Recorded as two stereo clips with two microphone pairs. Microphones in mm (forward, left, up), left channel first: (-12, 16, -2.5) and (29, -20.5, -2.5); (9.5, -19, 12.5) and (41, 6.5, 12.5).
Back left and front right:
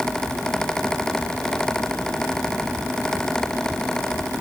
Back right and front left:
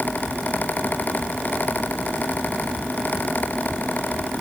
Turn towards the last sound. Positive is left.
No sound to turn to.